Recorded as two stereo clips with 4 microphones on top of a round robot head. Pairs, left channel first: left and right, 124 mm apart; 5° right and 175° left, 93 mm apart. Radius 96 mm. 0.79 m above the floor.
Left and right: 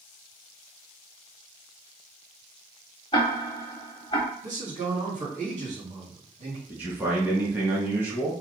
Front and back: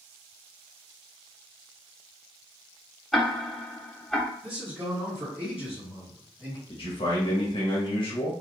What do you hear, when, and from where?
3.1 s ticking: 80° left, 0.6 m
4.4 s a man speaking: 105° right, 2.0 m
6.7 s a man speaking: 15° right, 1.5 m